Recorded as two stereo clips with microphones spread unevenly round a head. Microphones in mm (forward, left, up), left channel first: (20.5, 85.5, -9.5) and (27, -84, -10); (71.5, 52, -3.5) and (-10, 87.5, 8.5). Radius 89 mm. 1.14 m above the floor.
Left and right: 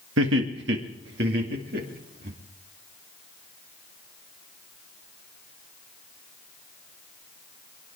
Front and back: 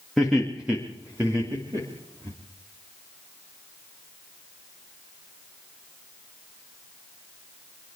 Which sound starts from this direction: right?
Laughter, at 0.2 s.